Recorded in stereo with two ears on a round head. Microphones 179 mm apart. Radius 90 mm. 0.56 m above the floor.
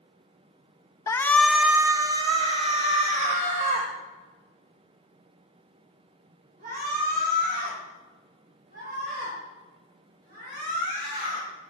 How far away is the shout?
About 0.7 m.